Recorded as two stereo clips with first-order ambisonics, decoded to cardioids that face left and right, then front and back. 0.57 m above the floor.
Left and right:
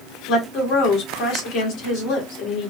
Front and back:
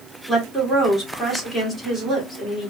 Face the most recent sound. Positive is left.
turn(degrees=90)